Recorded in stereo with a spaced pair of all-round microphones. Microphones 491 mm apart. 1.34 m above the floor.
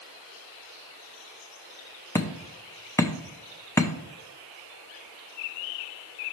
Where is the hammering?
5° left (ahead or behind), 0.6 m.